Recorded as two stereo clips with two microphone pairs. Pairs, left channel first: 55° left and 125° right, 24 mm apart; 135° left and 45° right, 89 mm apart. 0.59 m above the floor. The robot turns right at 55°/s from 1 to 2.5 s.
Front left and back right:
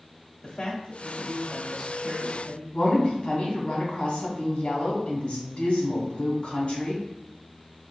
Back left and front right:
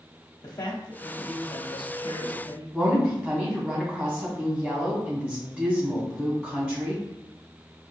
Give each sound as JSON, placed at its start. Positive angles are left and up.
{"t": 0.4, "sound": "a man speaking", "azimuth_deg": 95, "distance_m": 1.1}
{"t": 2.7, "sound": "a woman speaking", "azimuth_deg": 25, "distance_m": 2.0}